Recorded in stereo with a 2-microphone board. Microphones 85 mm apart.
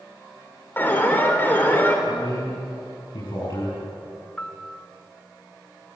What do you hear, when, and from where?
0.8 s an alarm: 25° left (ahead or behind), 3.5 m
2.1 s a man speaking: 65° left (ahead or behind), 7 m
4.4 s a piano: 15° left (ahead or behind), 0.5 m